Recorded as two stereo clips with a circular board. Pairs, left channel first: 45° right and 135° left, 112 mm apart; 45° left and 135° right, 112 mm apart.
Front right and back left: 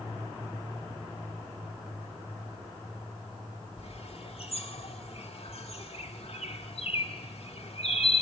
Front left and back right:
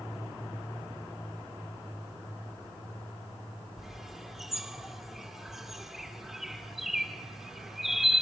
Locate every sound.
3.8 s a bird: 50° right, 1.8 m